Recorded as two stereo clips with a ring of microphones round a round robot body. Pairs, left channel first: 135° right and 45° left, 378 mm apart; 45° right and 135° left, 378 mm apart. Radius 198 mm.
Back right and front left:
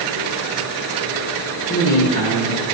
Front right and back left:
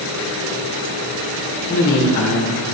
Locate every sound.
1.7 s a man speaking: 75° right, 1.3 m